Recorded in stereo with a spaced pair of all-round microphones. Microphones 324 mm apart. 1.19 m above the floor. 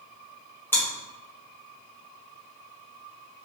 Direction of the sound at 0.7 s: 5° left (ahead or behind).